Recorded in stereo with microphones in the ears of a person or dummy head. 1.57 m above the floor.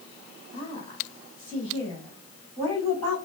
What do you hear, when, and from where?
0.5 s a woman speaking: 30° left (ahead or behind), 2.5 m; by 3.2 s 15° left (ahead or behind), 4 m